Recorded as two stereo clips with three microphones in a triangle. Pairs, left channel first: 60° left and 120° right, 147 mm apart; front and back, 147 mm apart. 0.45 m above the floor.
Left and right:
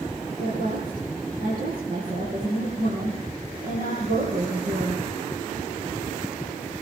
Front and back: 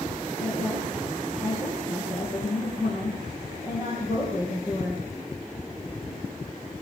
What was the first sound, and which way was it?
A woman speaking, 95° right.